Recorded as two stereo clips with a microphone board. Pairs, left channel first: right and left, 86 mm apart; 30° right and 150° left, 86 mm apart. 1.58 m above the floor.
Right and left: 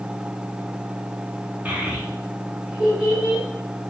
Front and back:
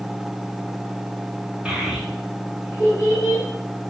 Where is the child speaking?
100° left, 0.7 m; by 3.4 s 10° left, 1.3 m.